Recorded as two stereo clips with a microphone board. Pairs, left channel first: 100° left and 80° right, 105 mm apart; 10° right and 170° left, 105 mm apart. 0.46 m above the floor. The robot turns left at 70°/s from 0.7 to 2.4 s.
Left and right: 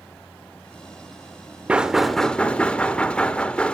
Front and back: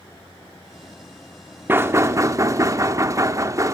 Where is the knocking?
140° right, 0.8 m; by 3.7 s 170° left, 0.8 m.